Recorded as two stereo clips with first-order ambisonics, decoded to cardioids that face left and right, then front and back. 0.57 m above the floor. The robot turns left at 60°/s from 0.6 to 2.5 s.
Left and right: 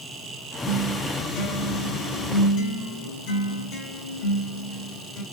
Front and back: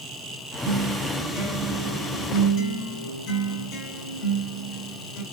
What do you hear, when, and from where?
0.7 s a guitar: 165° left, 4.5 m; by 5.2 s 55° left, 4.5 m